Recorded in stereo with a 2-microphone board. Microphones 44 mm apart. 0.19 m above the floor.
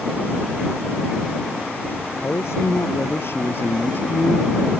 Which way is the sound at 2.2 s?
70° left (ahead or behind).